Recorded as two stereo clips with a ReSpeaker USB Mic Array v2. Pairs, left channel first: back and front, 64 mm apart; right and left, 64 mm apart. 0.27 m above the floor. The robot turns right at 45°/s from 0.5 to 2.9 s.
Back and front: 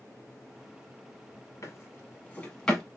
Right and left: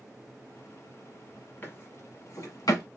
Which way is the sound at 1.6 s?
150° right.